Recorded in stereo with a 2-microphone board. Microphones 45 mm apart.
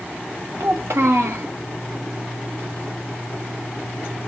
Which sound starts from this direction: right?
A child speaking, at 0.6 s.